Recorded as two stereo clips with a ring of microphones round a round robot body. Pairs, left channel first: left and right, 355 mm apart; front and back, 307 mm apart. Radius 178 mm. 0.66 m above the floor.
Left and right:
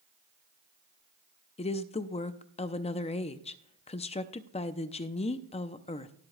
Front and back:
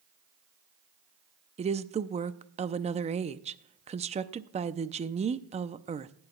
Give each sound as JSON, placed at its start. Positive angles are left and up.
{"t": 1.6, "sound": "a woman speaking", "azimuth_deg": 140, "distance_m": 0.5}